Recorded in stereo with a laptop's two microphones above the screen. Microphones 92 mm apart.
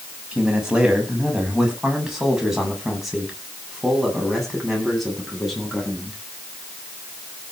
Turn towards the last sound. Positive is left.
turn(degrees=5)  # may be behind; listen again after turning